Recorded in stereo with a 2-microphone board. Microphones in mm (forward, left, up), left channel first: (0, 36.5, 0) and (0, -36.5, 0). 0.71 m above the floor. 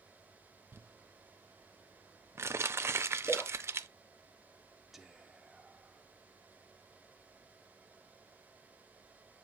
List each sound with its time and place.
0.7 s crumpling: 35° right (ahead or behind), 0.6 m
3.2 s a splash: 15° left (ahead or behind), 2 m
4.9 s whispering: 5° right (ahead or behind), 0.8 m